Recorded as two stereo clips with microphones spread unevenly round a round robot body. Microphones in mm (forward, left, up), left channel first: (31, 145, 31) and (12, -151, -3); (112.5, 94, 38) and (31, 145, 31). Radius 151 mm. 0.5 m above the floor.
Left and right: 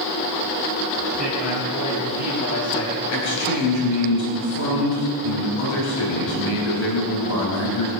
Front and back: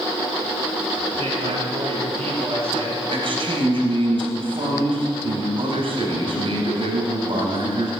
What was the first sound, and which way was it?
A man speaking, 150° left.